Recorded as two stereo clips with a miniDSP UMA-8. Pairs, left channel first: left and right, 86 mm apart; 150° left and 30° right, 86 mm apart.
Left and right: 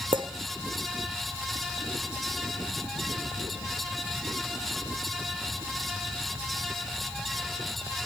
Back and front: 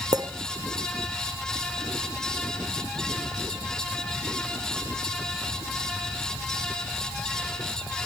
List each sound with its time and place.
0.1 s a clink: 70° right, 1.1 m